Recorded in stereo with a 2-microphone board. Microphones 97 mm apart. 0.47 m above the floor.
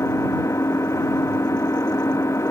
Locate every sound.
0.0 s an engine running: 30° left (ahead or behind)